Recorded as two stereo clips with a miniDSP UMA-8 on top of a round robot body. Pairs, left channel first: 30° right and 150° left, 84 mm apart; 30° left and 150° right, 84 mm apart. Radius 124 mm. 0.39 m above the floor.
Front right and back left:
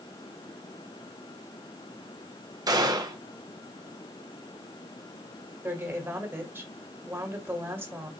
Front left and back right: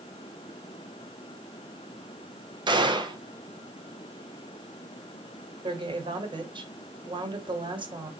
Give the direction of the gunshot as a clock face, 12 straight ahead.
6 o'clock.